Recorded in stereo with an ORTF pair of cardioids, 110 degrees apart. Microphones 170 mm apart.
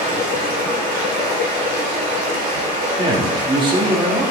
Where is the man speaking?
30° right, 2.5 m.